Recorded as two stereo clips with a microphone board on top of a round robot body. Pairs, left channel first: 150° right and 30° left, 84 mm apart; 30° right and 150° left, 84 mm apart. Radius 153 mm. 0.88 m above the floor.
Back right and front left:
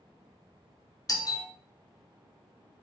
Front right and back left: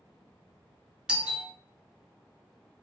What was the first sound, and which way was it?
A doorbell, 140° right.